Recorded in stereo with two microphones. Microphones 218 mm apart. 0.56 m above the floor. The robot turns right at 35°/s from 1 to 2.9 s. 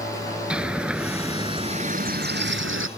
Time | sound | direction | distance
0.5 | a bird | 175° right | ?